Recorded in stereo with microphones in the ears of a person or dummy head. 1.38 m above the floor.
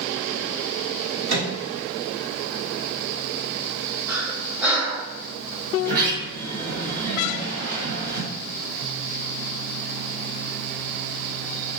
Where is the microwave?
85° right, 1.7 m.